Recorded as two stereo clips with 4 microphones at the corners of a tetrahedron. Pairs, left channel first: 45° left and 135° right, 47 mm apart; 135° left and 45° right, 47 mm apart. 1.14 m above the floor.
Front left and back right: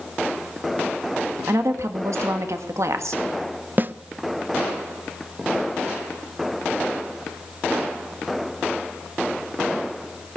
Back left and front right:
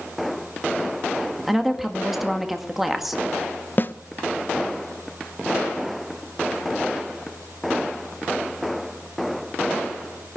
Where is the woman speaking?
130° right, 1.7 m.